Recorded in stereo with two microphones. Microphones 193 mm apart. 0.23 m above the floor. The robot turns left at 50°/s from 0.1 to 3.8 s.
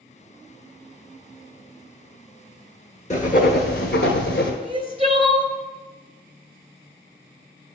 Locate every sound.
3.1 s writing: 140° left, 0.9 m; by 4.5 s 105° left, 0.9 m
4.6 s crying: 30° right (ahead or behind), 0.7 m